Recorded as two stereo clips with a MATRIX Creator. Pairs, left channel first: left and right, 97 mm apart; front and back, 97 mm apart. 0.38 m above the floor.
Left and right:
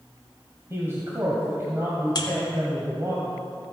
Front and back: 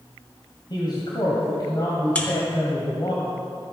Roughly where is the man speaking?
Ahead right.